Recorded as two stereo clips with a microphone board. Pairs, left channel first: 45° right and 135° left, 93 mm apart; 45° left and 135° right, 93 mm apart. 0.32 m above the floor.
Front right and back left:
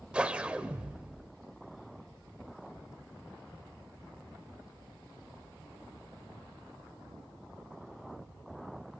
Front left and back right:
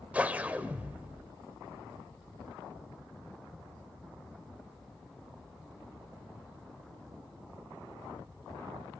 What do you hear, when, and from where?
0.1 s a whoosh: 170° right, 1.0 m